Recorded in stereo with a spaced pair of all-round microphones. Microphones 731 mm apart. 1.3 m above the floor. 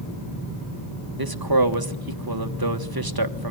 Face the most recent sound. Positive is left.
turn(degrees=-30)  # may be behind; listen again after turning